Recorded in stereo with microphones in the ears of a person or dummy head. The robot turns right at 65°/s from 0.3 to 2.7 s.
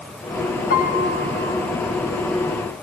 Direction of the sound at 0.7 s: 135° left.